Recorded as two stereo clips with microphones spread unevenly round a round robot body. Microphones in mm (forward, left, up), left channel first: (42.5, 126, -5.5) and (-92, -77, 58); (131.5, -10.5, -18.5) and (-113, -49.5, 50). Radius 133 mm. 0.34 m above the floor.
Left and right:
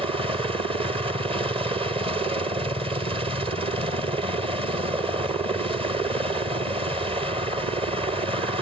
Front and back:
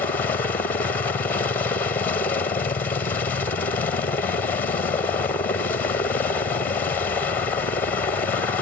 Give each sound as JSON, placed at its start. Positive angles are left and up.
{"t": 0.0, "sound": "a helicopter", "azimuth_deg": -45}